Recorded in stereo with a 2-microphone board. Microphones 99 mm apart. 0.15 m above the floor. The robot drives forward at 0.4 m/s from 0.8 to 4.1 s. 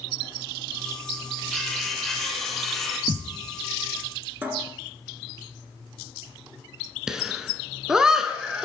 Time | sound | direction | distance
1.5 | cutlery clinking | 5° left (ahead or behind) | 2.5 m
3.1 | a thud | 60° right (ahead or behind) | 1.2 m
4.4 | a cupboard door | 20° right (ahead or behind) | 1.6 m
7.1 | laughter | 5° right (ahead or behind) | 1.5 m